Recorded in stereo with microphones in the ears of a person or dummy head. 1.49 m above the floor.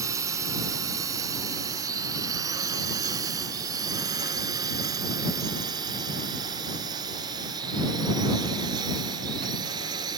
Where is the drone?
20° right (ahead or behind); by 10.2 s 25° right (ahead or behind).